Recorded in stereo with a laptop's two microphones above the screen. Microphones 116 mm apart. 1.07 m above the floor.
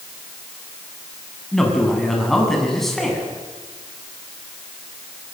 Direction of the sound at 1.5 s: 5° left (ahead or behind).